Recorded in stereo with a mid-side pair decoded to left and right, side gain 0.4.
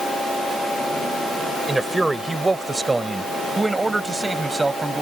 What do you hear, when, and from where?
1.7 s a man speaking: 15° right; by 5.0 s 20° right